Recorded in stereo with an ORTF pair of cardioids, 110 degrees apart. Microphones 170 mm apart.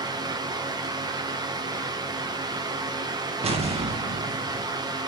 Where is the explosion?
35° right, 1.5 m.